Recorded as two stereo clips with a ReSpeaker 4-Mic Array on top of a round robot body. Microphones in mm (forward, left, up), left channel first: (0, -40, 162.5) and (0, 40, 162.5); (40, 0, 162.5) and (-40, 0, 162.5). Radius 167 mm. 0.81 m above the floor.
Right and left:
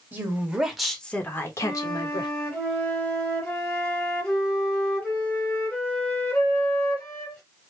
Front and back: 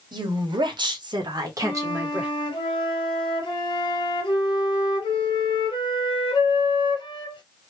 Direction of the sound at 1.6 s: 15° right.